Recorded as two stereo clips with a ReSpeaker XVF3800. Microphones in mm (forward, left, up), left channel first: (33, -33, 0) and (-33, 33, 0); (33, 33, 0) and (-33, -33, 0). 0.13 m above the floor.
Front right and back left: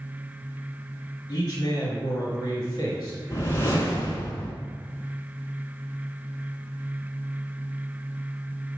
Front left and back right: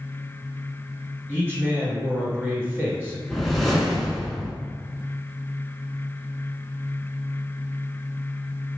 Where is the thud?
No thud in this recording.